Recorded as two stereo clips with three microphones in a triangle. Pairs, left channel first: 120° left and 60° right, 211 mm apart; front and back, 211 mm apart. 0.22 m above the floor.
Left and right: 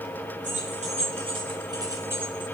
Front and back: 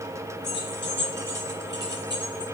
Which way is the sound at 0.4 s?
15° right.